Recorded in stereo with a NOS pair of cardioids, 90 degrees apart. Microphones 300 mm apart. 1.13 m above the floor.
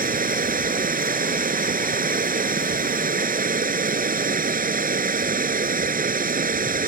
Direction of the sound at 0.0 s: 30° right.